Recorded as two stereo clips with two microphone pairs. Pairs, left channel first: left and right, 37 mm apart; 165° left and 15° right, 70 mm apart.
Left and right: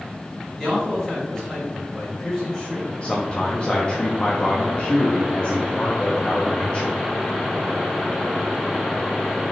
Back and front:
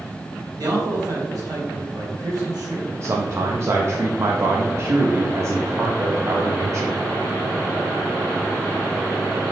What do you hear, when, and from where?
0.6 s a man speaking: 15° left, 1.5 m
3.0 s a man speaking: 35° left, 0.6 m